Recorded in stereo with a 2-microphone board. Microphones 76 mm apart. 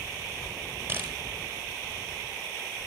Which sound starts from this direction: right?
A camera shutter, at 0.9 s.